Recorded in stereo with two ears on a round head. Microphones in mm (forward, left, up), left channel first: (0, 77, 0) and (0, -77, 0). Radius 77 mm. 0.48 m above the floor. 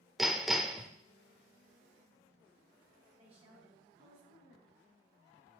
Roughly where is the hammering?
Centre.